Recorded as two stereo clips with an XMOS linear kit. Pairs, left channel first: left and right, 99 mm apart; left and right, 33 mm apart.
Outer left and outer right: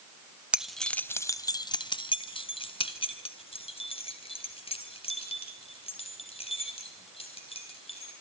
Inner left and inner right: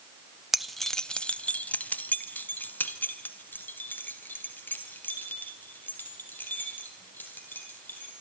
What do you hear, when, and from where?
0.5 s keys jangling: 10° right (ahead or behind), 0.7 m; by 8.1 s 75° left (ahead or behind), 5 m